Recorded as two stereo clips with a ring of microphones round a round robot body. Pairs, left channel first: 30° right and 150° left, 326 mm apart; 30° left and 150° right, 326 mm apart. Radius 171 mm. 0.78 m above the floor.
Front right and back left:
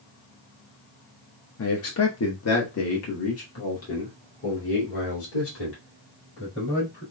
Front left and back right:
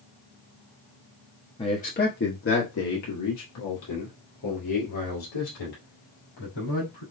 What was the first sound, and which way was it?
A man speaking, 35° right.